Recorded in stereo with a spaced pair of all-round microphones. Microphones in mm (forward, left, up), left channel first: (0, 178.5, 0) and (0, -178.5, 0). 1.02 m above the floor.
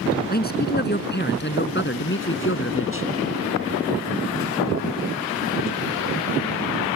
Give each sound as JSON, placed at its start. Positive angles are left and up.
{"t": 0.3, "sound": "a man speaking", "side_deg": 25}